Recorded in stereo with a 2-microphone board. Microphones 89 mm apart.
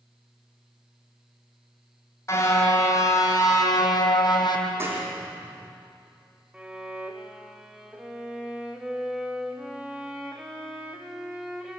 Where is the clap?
30° right (ahead or behind), 6.5 m.